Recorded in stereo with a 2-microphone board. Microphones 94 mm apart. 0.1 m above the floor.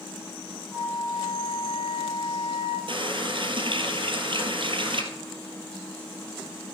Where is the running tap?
60° right (ahead or behind), 1.6 m.